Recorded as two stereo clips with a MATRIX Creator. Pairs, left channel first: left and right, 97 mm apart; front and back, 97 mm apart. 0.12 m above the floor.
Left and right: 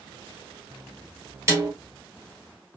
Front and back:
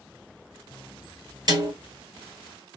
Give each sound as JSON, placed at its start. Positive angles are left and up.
{"t": 1.5, "sound": "a snare drum", "azimuth_deg": -140, "distance_m": 1.6}